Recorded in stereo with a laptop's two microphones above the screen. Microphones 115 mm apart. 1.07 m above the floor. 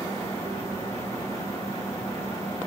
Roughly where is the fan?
Left.